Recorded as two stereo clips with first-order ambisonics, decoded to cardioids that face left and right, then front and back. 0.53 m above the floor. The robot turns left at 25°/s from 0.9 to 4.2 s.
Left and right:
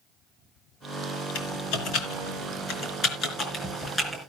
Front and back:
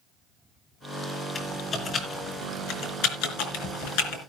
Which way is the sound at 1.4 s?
75° left.